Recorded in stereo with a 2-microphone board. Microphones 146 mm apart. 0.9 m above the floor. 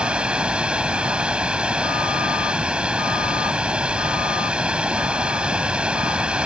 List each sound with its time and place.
0.0 s running water: 5° right (ahead or behind)